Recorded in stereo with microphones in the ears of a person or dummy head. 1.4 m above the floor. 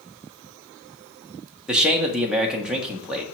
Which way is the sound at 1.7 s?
5° right (ahead or behind).